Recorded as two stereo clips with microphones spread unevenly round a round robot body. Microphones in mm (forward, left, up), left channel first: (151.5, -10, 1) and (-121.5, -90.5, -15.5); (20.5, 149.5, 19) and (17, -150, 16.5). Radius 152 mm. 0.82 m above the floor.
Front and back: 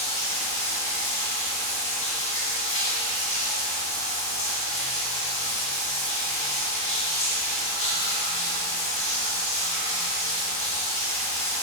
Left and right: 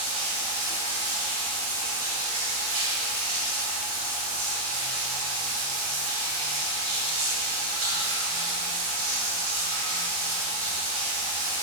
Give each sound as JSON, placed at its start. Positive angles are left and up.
{"t": 0.0, "sound": "running water", "azimuth_deg": -50, "distance_m": 3.5}